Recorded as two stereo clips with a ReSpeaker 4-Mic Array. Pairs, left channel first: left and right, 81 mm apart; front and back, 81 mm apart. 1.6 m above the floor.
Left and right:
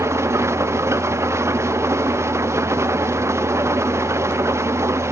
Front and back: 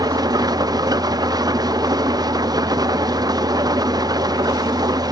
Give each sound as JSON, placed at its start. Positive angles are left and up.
{"t": 0.0, "sound": "an engine running", "azimuth_deg": -145, "distance_m": 0.7}